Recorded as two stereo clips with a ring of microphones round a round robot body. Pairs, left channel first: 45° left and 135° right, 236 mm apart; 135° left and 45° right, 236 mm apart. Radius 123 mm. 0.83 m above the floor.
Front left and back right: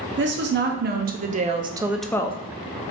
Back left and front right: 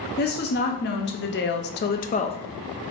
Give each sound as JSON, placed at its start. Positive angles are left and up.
{"t": 0.2, "sound": "a woman speaking", "azimuth_deg": -175, "distance_m": 1.3}